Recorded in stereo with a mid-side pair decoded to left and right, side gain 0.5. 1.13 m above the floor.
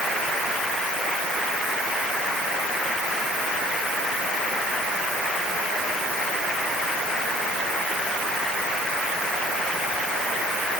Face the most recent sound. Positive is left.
No sound to turn to.